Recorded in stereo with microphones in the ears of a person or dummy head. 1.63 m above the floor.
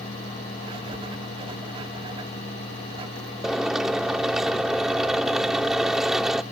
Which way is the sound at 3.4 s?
Centre (ahead or behind).